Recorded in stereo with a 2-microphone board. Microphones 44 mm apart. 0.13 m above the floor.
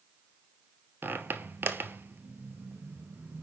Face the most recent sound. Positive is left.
turn(degrees=-50)  # may be behind; listen again after turning